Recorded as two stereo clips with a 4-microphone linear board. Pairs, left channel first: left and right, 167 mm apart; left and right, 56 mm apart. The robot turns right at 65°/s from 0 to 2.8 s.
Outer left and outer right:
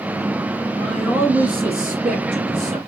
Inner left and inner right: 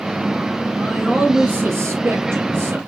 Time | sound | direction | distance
0.8 | a man speaking | 165° left | 1.9 m